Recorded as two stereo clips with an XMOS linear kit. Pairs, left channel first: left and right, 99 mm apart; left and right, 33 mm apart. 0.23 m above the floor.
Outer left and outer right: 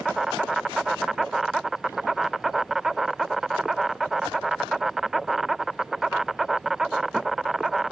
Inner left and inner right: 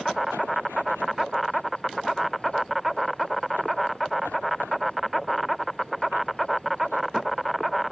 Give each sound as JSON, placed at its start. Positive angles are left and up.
{"t": 0.0, "sound": "an insect", "side_deg": 0}